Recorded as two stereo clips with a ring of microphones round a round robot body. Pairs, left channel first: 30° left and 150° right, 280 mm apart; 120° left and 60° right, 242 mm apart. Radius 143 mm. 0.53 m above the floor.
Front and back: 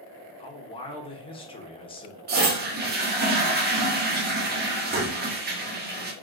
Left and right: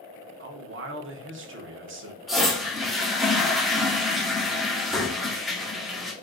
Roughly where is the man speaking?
Ahead right.